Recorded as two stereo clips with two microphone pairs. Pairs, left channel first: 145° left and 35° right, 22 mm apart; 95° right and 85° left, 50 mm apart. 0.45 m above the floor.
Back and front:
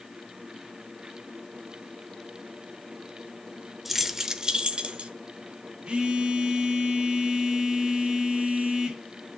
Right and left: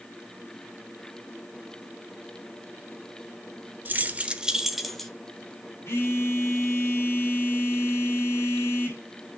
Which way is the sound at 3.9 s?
50° left.